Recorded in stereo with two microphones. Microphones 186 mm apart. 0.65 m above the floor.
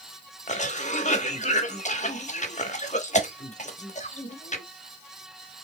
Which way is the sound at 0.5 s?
40° left (ahead or behind).